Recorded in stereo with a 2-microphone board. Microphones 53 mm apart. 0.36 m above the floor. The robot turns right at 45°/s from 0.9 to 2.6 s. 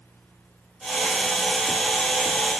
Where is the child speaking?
No child speaking in this recording.